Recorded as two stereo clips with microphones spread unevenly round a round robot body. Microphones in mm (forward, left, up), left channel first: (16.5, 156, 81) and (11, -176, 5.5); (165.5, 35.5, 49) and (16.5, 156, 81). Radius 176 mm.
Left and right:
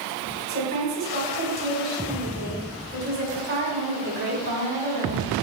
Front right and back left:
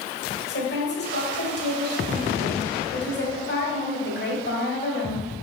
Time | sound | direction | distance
0.5 | a woman speaking | 35° right | 2.5 m